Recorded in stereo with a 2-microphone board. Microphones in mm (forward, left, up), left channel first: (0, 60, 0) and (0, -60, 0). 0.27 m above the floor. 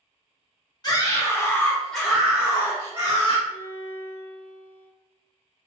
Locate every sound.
0.8 s a scream: 35° left (ahead or behind), 1.1 m; by 3.4 s 35° right (ahead or behind), 1.2 m
3.5 s a violin: 20° left (ahead or behind), 1.5 m